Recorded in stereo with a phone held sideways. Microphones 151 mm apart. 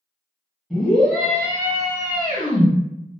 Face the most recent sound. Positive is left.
turn(degrees=40)  # may be behind; listen again after turning